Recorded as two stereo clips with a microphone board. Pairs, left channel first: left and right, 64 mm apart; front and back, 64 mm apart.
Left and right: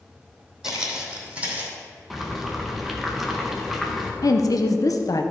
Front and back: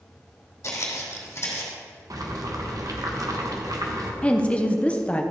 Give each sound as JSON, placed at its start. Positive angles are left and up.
{"t": 0.6, "sound": "footsteps", "azimuth_deg": -10, "distance_m": 2.5}
{"t": 2.1, "sound": "boiling", "azimuth_deg": -175, "distance_m": 1.2}
{"t": 4.2, "sound": "a woman speaking", "azimuth_deg": 70, "distance_m": 0.8}